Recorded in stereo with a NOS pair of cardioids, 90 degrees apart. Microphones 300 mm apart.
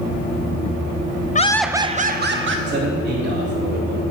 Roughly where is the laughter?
Ahead left.